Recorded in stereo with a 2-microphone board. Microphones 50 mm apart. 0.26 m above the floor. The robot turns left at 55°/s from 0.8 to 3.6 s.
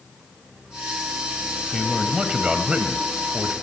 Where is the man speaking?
10° right (ahead or behind), 0.9 m; by 3.5 s 15° right (ahead or behind), 0.9 m.